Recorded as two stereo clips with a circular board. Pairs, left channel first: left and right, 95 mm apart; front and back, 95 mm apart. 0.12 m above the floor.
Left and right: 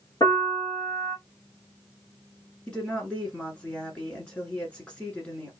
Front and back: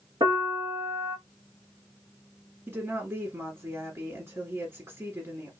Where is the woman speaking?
155° left, 1.4 m.